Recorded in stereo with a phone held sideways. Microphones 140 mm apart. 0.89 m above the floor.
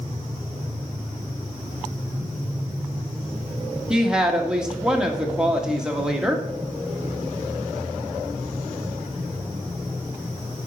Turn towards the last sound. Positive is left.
turn(degrees=-5)  # may be behind; listen again after turning